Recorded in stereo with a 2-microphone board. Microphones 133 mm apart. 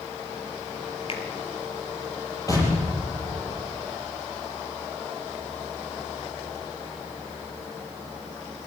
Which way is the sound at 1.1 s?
45° left (ahead or behind).